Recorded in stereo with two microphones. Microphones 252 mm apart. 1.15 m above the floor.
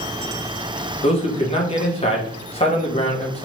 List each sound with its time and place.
1.0 s a man speaking: 25° left (ahead or behind), 1.4 m